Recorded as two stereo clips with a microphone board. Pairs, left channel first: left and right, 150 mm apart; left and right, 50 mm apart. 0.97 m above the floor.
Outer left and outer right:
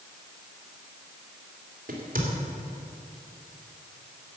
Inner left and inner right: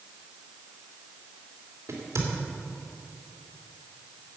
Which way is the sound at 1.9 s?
75° right (ahead or behind).